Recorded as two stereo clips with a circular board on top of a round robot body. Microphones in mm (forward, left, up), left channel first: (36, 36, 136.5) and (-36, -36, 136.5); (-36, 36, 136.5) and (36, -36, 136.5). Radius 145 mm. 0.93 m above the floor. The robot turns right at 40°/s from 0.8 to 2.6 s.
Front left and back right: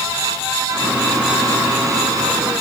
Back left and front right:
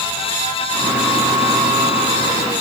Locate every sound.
Only background noise.